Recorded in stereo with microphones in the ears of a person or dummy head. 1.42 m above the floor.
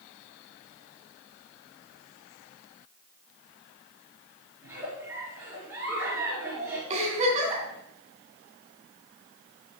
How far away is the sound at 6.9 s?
About 3 m.